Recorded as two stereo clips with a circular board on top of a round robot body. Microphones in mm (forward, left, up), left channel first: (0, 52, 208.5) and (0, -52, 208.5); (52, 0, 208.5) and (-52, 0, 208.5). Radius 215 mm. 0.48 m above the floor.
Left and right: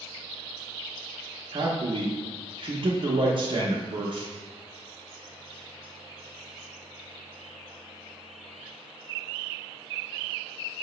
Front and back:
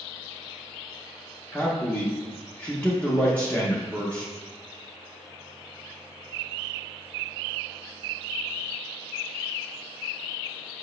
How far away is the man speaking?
About 0.8 m.